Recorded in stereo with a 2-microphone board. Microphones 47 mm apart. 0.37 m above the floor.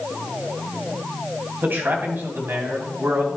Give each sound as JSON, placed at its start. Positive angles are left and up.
{"t": 1.6, "sound": "a man speaking", "side_deg": -45, "distance_m": 2.5}